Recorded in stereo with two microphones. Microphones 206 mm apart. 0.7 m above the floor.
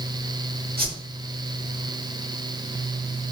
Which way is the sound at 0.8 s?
45° right (ahead or behind).